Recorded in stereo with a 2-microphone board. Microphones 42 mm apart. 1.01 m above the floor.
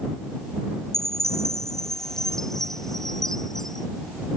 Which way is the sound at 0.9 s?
10° left (ahead or behind).